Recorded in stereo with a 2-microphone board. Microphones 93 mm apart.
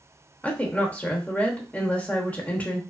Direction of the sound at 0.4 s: 15° left (ahead or behind).